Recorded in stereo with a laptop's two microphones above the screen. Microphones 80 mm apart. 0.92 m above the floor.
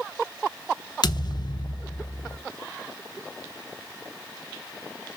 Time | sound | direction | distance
1.0 | a thud | 60° left (ahead or behind) | 0.7 m